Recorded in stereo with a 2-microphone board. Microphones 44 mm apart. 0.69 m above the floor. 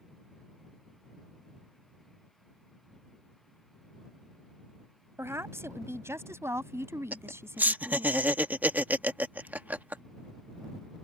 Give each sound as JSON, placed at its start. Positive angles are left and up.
{"t": 5.2, "sound": "a woman speaking", "side_deg": -75}
{"t": 7.1, "sound": "laughter", "side_deg": -40}